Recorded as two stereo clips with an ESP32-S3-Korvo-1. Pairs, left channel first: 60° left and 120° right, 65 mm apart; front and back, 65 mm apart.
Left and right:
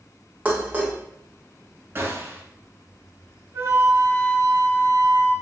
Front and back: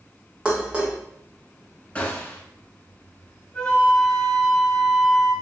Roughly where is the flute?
Right.